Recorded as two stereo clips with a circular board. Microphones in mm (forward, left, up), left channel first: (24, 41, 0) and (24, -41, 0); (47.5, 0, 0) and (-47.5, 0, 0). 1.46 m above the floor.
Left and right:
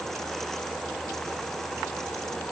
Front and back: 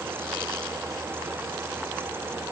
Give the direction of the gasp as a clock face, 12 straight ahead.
No gasp in this recording.